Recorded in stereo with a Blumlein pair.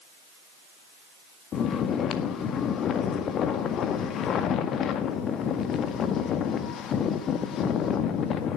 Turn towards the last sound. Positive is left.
turn(degrees=30)